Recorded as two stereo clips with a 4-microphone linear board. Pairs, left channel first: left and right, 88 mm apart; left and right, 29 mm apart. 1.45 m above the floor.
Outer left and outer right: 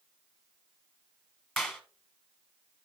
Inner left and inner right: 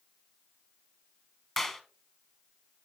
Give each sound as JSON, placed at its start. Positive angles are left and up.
{"t": 1.6, "sound": "a clap", "side_deg": 5, "distance_m": 1.1}